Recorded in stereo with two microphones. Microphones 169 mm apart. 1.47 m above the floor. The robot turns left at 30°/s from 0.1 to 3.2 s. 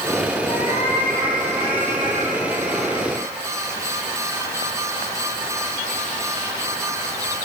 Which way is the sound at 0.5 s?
115° left.